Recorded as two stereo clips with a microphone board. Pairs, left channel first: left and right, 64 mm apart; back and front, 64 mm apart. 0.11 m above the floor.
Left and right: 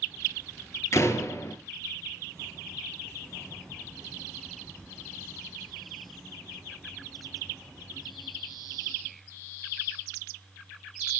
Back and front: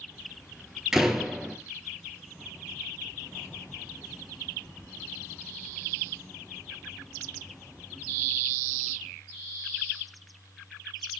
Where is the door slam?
80° left, 1.4 m.